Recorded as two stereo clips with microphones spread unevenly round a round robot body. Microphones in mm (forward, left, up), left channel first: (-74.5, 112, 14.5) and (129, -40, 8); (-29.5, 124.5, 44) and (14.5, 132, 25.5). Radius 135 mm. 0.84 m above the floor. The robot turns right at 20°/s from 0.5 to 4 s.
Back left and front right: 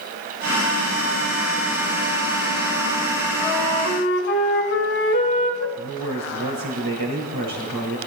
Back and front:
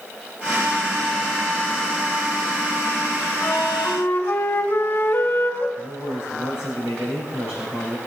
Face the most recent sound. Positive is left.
turn(degrees=-50)